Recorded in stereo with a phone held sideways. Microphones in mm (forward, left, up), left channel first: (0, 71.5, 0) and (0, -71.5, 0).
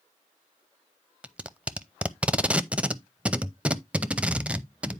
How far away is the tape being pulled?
About 0.6 m.